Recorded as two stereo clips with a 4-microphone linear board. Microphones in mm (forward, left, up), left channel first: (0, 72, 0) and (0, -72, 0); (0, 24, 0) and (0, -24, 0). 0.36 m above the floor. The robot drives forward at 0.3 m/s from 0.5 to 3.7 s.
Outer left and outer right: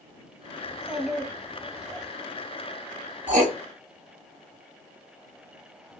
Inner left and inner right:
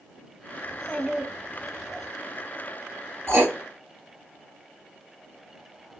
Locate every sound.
0.7 s a child speaking: 5° right (ahead or behind), 1.3 m
3.3 s writing: 60° right (ahead or behind), 2 m